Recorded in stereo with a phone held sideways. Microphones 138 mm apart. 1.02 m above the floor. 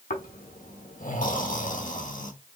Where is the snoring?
70° left (ahead or behind), 1.3 m.